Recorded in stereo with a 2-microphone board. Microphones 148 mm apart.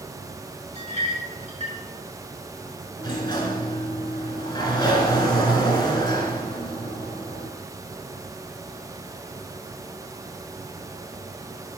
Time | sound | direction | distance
0.8 | a clink | 50° right (ahead or behind) | 2.5 m
3.0 | a sliding door | 30° left (ahead or behind) | 1.9 m